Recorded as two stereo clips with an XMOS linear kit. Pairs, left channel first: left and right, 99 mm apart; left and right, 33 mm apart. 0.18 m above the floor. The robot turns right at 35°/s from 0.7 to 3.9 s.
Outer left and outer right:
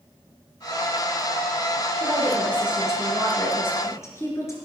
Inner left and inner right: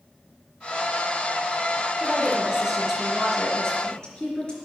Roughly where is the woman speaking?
Ahead right.